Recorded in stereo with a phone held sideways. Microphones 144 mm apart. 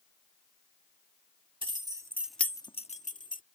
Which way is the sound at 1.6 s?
40° right (ahead or behind).